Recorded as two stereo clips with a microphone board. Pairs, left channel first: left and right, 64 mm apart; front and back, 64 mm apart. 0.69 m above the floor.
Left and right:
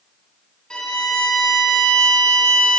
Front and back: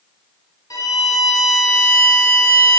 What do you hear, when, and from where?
0.7 s a violin: 15° left, 1.6 m